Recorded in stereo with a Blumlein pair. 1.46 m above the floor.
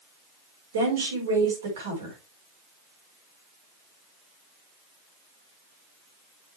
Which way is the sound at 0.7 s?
65° right.